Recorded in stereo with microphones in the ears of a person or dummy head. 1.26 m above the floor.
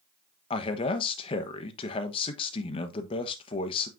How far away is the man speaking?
About 1.1 m.